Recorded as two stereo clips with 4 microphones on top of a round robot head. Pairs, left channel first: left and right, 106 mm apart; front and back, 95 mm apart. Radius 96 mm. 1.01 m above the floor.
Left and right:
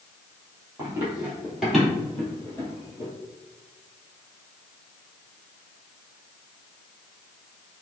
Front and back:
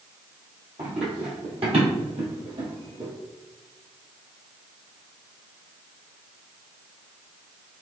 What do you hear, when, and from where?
0.8 s running footsteps: 155° right, 1.5 m; by 3.1 s 145° left, 1.7 m